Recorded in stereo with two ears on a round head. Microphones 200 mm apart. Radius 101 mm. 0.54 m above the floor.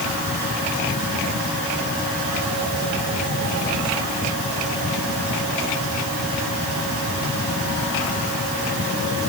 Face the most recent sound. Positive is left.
No sound to turn to.